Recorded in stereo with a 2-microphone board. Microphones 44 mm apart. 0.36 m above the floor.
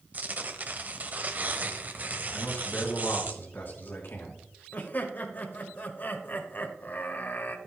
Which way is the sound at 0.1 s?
35° right (ahead or behind).